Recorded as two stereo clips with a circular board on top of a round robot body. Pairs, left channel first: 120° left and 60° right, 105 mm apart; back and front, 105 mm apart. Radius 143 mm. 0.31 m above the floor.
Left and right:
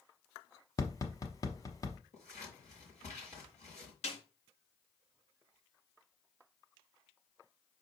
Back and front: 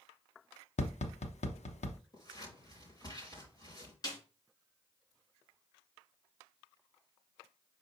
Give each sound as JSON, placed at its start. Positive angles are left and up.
{"t": 0.8, "sound": "tapping", "azimuth_deg": 180, "distance_m": 0.8}
{"t": 2.1, "sound": "scissors", "azimuth_deg": 130, "distance_m": 5.5}
{"t": 4.0, "sound": "a snare drum", "azimuth_deg": 130, "distance_m": 3.0}